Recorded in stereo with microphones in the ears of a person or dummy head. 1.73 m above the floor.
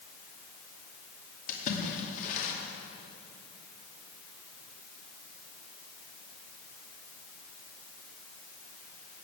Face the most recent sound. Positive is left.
turn(degrees=50)  # may be behind; listen again after turning